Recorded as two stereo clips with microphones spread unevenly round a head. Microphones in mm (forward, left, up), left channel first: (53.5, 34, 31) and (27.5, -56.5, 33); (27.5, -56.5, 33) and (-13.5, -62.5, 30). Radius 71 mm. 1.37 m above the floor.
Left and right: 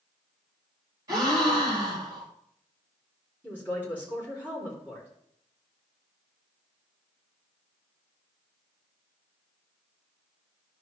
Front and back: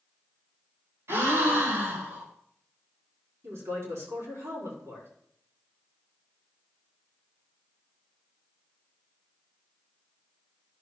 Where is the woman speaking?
175° left, 4 m.